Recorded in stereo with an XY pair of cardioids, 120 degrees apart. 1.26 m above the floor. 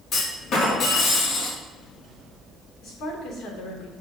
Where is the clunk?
45° left, 2.5 m.